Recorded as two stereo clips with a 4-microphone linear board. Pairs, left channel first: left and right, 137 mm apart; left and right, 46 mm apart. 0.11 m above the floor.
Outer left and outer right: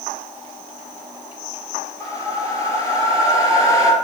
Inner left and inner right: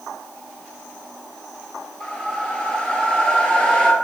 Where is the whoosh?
25° left (ahead or behind), 0.9 m.